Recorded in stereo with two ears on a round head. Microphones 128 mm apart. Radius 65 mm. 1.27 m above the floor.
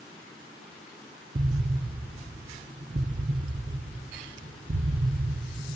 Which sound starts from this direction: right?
An explosion, at 1.4 s.